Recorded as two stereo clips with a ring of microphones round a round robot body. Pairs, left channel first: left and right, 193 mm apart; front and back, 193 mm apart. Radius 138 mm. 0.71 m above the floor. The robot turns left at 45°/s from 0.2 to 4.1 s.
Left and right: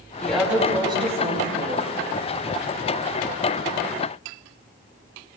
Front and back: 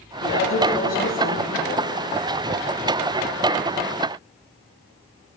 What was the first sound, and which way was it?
A woman speaking, 10° left.